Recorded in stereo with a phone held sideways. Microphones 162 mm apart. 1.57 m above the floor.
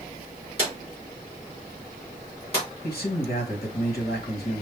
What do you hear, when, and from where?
0.6 s a drawer: 35° left (ahead or behind), 3.5 m
2.8 s a man speaking: 70° left (ahead or behind), 2 m